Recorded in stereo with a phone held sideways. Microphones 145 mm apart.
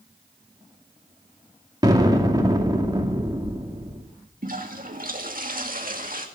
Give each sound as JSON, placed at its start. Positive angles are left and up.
{"t": 1.8, "sound": "an explosion", "side_deg": -25, "distance_m": 2.5}
{"t": 4.4, "sound": "a toilet flushing", "side_deg": -65, "distance_m": 2.0}